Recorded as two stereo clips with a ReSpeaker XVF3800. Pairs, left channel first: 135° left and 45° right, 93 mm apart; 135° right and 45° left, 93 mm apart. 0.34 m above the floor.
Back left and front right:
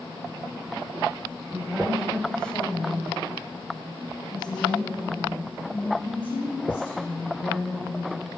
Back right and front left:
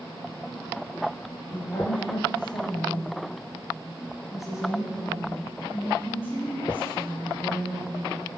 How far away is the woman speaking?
About 1.6 m.